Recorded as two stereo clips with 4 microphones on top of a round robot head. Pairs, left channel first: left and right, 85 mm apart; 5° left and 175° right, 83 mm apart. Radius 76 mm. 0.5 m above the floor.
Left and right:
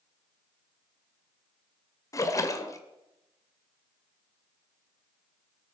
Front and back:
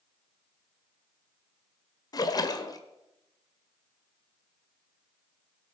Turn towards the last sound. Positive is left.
turn(degrees=40)